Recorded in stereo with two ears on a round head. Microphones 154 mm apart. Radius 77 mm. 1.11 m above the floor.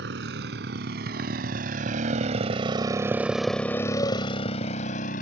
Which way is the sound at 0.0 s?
70° right (ahead or behind).